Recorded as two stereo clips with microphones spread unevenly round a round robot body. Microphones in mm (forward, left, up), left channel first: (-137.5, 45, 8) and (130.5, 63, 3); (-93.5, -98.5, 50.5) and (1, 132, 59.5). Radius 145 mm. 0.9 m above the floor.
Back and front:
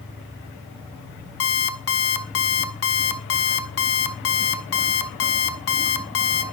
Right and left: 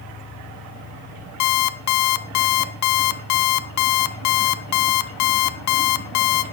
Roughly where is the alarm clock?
Behind right.